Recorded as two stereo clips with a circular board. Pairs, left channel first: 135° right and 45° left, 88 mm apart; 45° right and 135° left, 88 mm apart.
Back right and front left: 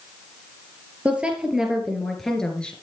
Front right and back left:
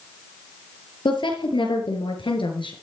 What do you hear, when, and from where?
1.1 s a woman speaking: 30° right, 4.5 m; by 2.7 s 55° right, 3.5 m